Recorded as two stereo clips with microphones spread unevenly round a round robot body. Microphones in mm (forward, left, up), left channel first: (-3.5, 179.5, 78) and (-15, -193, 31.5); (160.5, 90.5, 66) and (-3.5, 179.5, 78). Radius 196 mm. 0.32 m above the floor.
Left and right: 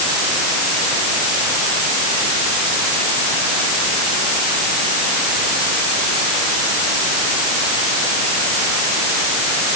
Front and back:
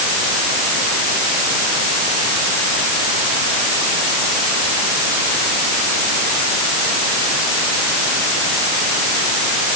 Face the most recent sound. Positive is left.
No sound to turn to.